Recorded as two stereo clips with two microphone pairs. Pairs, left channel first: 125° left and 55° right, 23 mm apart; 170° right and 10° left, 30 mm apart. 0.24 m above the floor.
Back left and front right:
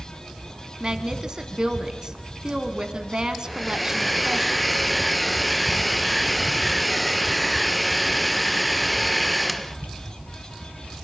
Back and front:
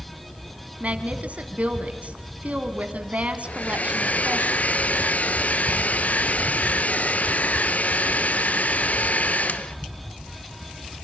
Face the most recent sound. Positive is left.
turn(degrees=-145)